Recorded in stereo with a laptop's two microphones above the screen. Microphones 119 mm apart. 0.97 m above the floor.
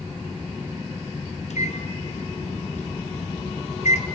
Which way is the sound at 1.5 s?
75° left (ahead or behind).